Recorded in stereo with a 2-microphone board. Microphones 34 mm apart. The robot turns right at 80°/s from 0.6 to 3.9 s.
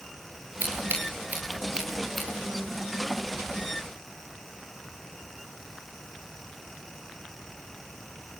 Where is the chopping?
No chopping in this recording.